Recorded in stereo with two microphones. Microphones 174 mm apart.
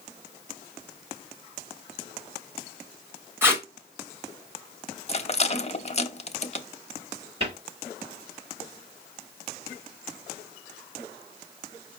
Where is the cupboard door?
35° right (ahead or behind), 4 m.